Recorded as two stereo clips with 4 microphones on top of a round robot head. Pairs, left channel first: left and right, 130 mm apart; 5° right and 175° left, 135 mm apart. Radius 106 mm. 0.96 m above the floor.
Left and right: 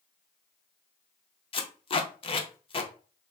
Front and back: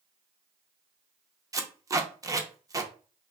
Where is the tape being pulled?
115° left, 0.8 m.